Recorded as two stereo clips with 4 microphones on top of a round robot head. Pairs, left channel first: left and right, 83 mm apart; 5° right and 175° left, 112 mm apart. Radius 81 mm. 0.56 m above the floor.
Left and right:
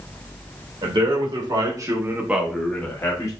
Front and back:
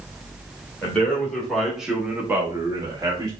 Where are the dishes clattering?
No dishes clattering in this recording.